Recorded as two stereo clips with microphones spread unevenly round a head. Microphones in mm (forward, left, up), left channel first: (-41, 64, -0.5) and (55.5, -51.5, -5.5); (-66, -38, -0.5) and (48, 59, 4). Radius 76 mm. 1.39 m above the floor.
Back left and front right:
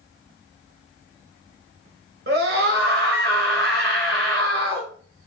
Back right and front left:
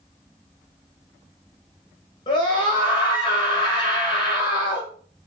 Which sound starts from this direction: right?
A scream, at 2.3 s.